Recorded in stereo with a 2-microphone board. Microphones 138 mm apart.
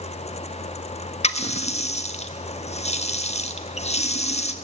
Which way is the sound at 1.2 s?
50° left (ahead or behind).